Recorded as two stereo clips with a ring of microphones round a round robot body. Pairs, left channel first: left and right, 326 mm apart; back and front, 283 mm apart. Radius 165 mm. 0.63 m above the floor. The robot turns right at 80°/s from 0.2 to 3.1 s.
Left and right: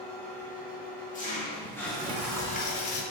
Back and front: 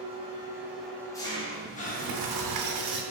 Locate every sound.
0.0 s an engine running: 40° left, 0.9 m; by 3.1 s 90° right, 0.9 m
1.6 s a sliding door: 50° right, 0.6 m; by 3.0 s 60° left, 0.6 m